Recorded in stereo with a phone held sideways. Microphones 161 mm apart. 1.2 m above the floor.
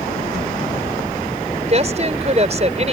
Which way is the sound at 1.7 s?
40° right (ahead or behind).